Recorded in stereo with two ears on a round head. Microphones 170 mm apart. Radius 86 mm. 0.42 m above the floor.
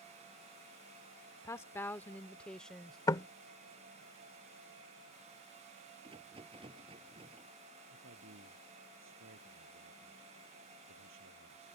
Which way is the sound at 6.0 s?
30° right (ahead or behind).